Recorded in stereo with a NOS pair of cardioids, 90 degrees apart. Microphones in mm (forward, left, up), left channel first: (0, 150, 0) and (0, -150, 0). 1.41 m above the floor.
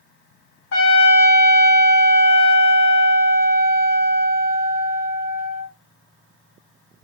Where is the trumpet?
40° left, 1.7 m.